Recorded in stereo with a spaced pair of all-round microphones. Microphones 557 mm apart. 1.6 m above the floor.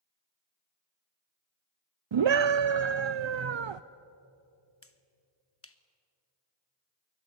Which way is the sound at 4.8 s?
25° left (ahead or behind).